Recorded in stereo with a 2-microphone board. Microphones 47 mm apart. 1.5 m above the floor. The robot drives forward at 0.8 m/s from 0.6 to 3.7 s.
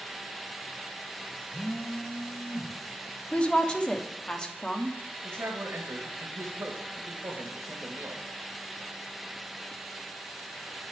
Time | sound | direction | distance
1.5 | a phone buzzing | 30° left (ahead or behind) | 0.7 m
3.3 | a woman speaking | 25° left (ahead or behind) | 0.7 m
5.2 | a man speaking | 65° right (ahead or behind) | 1.3 m